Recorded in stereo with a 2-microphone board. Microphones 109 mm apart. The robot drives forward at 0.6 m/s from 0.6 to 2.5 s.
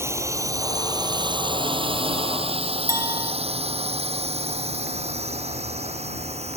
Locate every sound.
0.0 s a drone: 25° right (ahead or behind); by 6.6 s 75° right (ahead or behind)
2.9 s a clink: 30° right (ahead or behind)